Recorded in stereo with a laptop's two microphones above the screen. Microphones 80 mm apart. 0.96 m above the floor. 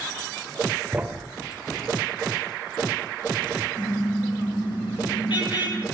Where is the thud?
15° right (ahead or behind), 1.1 m.